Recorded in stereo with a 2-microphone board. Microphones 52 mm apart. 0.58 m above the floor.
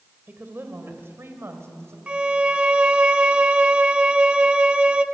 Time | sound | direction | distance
0.3 | a woman speaking | 40° right (ahead or behind) | 2.5 m
2.1 | a violin | 25° right (ahead or behind) | 1.0 m